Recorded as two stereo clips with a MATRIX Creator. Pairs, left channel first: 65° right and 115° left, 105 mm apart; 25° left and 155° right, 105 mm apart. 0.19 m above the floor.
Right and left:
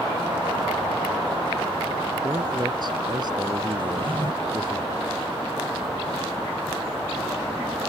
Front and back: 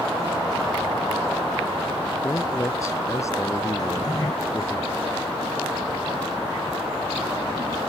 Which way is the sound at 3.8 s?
75° left.